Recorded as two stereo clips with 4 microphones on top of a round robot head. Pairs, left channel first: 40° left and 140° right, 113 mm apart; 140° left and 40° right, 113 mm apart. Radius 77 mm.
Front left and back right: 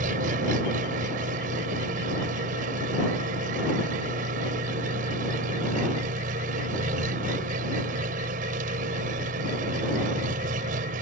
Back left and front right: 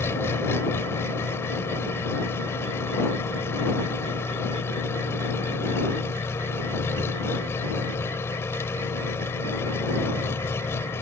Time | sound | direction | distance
0.0 | an engine running | 150° right | ?